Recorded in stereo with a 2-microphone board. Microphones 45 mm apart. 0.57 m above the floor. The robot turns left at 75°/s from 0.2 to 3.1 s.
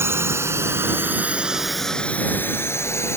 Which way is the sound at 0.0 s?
70° right (ahead or behind).